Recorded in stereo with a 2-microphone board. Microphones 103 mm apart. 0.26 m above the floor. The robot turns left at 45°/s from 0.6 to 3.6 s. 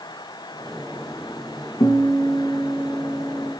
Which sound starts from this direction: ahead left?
A guitar, at 1.8 s.